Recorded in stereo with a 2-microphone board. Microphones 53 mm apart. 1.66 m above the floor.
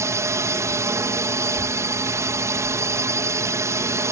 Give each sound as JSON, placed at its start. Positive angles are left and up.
{"t": 0.0, "sound": "a drone", "side_deg": -60}
{"t": 1.5, "sound": "a child speaking", "side_deg": 30}